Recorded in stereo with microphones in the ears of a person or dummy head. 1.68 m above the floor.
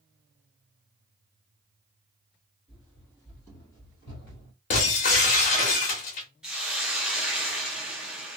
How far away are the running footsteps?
About 1.8 m.